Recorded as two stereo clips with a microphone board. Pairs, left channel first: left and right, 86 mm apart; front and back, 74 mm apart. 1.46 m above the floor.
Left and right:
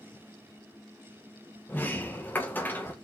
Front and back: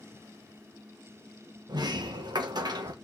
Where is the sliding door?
160° left, 1.5 m.